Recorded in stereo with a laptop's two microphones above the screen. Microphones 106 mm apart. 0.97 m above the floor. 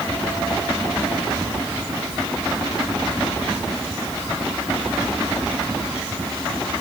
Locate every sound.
Only background noise.